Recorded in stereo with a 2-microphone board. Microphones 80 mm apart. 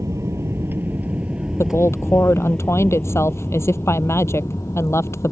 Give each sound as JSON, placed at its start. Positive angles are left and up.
{"t": 0.0, "sound": "an aircraft", "side_deg": -40}
{"t": 1.6, "sound": "a woman speaking", "side_deg": 35}